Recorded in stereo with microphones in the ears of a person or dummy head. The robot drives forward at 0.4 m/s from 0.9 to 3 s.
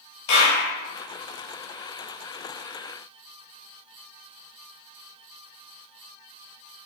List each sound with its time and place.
0.3 s a clap: 65° left (ahead or behind), 2.5 m